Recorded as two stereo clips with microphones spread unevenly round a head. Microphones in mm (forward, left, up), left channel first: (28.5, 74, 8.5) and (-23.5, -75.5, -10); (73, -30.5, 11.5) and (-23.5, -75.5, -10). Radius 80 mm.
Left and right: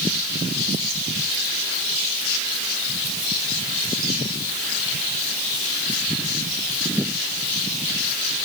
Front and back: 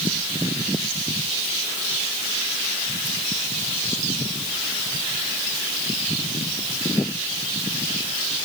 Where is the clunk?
No clunk in this recording.